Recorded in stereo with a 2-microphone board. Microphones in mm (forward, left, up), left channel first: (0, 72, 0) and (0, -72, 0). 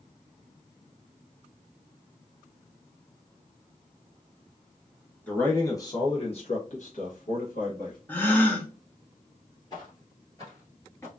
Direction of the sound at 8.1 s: 10° left (ahead or behind).